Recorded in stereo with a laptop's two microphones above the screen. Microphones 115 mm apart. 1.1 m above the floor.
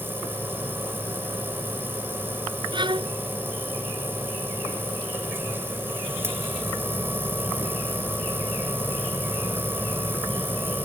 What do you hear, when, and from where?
0.0 s a machine running: 20° right (ahead or behind)
2.7 s a violin: 45° right (ahead or behind)